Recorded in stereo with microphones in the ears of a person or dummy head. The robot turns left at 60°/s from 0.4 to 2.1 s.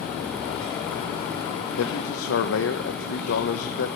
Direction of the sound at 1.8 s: 75° left (ahead or behind).